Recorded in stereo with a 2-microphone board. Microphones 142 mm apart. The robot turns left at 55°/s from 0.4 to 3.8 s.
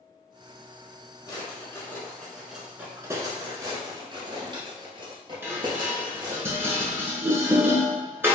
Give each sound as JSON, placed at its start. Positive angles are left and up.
{"t": 1.3, "sound": "a drawer", "side_deg": 30, "distance_m": 0.9}
{"t": 3.6, "sound": "a drawer", "side_deg": -25, "distance_m": 0.8}
{"t": 5.4, "sound": "dishes clattering", "side_deg": -15, "distance_m": 0.8}